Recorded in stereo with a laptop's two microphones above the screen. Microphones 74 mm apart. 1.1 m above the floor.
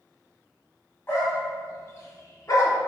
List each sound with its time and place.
1.1 s a dog barking: 30° left (ahead or behind), 1.1 m; by 2.8 s 45° left (ahead or behind), 0.8 m